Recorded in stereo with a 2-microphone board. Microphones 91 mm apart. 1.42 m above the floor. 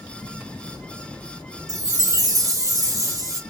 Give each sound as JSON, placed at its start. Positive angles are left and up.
{"t": 1.7, "sound": "a chime", "side_deg": -40, "distance_m": 1.4}